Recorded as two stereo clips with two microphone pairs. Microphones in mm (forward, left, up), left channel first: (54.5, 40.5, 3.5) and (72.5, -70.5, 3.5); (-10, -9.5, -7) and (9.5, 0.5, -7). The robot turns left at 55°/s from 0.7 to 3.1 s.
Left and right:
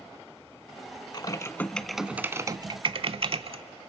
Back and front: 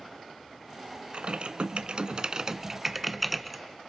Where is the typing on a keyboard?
50° left, 0.5 m; by 3.6 s 60° right, 0.5 m.